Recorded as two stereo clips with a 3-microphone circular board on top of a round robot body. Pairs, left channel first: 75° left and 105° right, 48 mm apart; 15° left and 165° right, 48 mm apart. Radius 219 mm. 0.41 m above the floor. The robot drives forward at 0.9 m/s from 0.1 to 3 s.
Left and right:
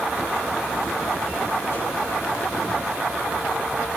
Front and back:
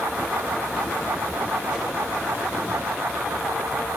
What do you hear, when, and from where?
1.7 s a whoosh: 130° left, 6.5 m